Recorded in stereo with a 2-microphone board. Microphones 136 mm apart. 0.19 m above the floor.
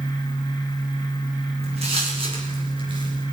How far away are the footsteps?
About 8.5 m.